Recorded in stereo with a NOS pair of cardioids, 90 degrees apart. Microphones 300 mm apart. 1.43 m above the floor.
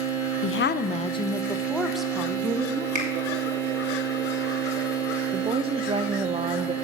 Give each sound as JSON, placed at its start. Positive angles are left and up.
{"t": 0.4, "sound": "a woman speaking", "azimuth_deg": 50, "distance_m": 0.6}
{"t": 3.0, "sound": "a finger snap", "azimuth_deg": -25, "distance_m": 4.5}
{"t": 5.3, "sound": "a woman speaking", "azimuth_deg": -20, "distance_m": 0.6}